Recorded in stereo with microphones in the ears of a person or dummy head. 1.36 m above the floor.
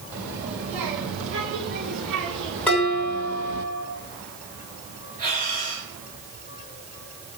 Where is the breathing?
45° right (ahead or behind), 5.5 m.